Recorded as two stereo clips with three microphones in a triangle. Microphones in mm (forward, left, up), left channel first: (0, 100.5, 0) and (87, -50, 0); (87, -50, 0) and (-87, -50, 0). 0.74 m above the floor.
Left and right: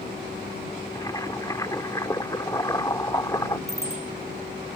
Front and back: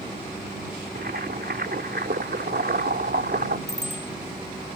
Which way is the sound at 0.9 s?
170° right.